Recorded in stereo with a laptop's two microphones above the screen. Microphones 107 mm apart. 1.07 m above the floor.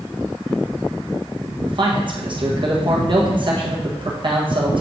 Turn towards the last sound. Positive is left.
turn(degrees=-45)  # may be behind; listen again after turning